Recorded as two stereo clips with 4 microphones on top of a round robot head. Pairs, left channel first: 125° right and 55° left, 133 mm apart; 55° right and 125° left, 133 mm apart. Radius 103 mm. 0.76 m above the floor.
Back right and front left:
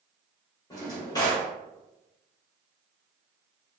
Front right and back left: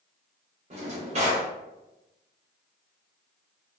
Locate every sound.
0.7 s a drawer: 170° left, 0.7 m